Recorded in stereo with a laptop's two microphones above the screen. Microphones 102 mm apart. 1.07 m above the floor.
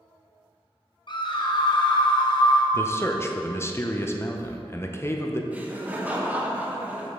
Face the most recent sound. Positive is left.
turn(degrees=-15)  # may be behind; listen again after turning